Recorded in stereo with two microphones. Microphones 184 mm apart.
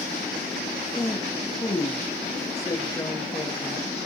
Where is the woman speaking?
20° left (ahead or behind), 1.4 m.